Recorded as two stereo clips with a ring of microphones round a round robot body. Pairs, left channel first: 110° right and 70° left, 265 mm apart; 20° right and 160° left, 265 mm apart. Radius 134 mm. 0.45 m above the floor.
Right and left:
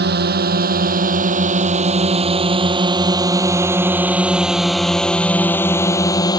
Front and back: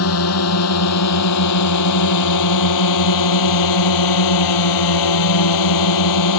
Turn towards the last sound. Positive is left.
turn(degrees=-35)